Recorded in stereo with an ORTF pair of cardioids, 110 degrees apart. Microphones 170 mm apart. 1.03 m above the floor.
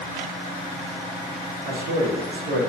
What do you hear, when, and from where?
1.6 s a man speaking: 65° right, 0.8 m